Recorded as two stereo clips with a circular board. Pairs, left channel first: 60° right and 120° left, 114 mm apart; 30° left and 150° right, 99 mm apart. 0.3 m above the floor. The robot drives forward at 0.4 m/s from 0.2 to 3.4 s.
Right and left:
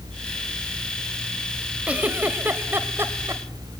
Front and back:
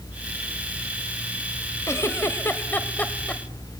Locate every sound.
1.9 s a giggle: 50° left, 1.7 m; by 3.4 s 95° left, 1.6 m